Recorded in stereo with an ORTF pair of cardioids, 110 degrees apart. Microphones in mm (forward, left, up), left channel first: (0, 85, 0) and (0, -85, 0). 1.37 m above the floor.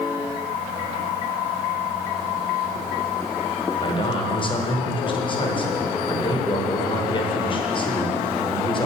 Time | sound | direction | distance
3.8 | a man speaking | 30° left | 1.1 m